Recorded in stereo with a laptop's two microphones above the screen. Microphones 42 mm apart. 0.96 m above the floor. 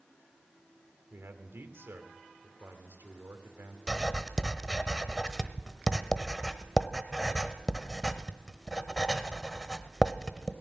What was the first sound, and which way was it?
A man speaking, 70° right (ahead or behind).